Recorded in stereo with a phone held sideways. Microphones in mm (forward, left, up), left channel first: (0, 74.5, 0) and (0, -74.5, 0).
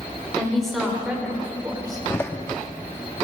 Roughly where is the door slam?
Centre.